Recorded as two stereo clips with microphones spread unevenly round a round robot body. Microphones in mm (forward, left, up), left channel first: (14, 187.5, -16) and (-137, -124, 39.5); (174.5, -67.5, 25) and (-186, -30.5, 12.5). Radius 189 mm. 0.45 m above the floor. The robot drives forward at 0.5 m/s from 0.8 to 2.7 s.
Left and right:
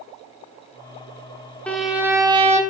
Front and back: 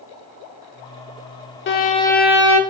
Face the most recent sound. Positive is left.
turn(degrees=180)